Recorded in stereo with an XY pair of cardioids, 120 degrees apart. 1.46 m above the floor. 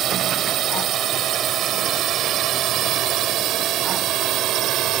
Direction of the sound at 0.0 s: 55° right.